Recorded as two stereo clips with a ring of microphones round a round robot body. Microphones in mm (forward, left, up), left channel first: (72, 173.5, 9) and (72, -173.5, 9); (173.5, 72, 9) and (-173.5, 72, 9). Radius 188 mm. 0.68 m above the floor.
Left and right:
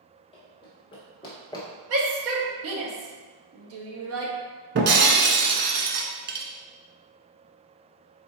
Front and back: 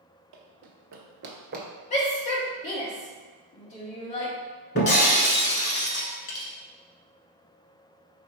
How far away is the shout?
About 1.1 m.